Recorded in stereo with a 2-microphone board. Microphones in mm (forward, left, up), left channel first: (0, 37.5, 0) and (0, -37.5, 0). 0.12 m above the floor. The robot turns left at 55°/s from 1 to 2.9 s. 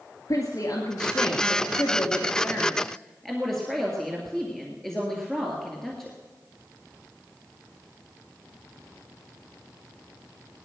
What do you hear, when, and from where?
0.3 s a woman speaking: 110° left, 2 m; by 6.2 s 5° left, 2 m